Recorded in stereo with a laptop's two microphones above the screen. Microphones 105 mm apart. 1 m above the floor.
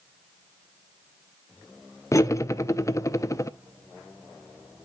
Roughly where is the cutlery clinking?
Left.